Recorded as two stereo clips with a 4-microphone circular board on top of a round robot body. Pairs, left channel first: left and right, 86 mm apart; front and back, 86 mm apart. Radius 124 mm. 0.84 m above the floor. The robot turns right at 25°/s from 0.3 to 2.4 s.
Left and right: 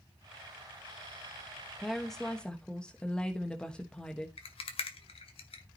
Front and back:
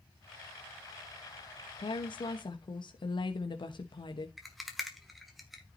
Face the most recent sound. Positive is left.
turn(degrees=90)